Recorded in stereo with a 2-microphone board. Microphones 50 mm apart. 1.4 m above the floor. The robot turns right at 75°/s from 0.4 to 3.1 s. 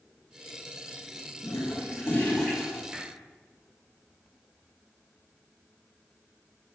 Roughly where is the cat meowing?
No cat meowing in this recording.